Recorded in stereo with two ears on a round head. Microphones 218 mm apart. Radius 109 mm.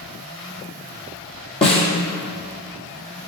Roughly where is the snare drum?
Left.